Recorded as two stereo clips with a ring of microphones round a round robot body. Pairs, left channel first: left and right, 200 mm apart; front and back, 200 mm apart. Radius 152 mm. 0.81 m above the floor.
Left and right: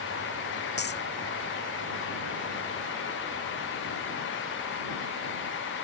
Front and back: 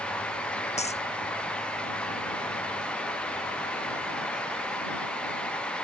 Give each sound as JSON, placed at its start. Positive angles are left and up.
{"t": 0.8, "sound": "a dropped coin", "azimuth_deg": 55}